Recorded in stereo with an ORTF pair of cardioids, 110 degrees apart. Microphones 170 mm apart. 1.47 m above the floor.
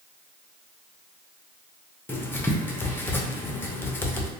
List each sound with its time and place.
2.1 s writing: 10° left, 0.6 m